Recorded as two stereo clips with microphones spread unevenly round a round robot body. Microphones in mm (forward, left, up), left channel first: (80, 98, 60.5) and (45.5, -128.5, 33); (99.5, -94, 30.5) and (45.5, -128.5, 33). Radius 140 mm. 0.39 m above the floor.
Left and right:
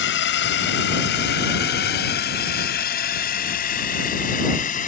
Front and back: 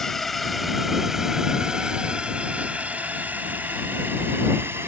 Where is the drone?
120° left; by 4.9 s 140° left.